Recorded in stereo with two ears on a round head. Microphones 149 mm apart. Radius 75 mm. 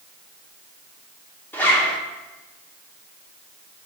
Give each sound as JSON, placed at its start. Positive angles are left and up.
{"t": 1.5, "sound": "a zipper", "side_deg": 10, "distance_m": 1.6}